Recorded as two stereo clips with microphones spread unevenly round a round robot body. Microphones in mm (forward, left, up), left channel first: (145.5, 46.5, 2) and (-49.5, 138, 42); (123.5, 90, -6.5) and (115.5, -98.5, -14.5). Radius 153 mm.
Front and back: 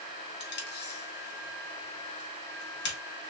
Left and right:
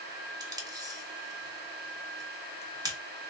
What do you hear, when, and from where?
0.4 s tape being pulled: 25° right, 1.6 m